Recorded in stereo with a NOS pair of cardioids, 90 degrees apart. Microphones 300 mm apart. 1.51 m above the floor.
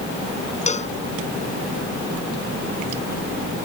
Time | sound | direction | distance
0.7 | a cowbell | 25° left | ?